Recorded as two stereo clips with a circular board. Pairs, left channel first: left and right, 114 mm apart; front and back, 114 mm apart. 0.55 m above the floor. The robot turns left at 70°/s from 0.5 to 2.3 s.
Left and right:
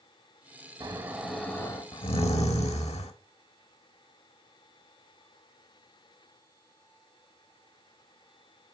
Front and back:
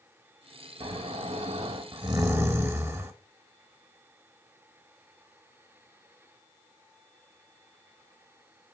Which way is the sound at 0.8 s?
145° right.